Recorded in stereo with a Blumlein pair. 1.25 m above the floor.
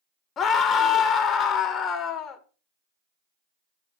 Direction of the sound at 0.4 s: 25° left.